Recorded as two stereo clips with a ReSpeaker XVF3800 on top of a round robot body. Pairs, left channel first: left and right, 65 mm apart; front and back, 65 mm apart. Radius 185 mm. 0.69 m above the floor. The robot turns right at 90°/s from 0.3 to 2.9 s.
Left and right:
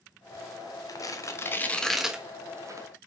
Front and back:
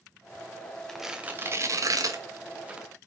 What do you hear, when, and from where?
0.9 s tearing paper: 80° left, 1.6 m; by 2.9 s 100° right, 1.6 m